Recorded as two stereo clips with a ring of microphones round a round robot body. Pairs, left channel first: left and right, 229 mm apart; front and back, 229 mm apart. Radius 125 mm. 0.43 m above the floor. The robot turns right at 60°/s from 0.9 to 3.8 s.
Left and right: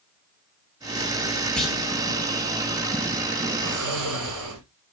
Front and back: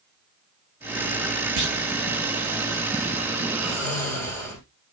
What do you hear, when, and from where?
1.6 s a clunk: 175° left, 3 m; by 1.8 s 170° right, 3 m
3.6 s snoring: 90° right, 5 m; by 4.6 s 75° right, 5 m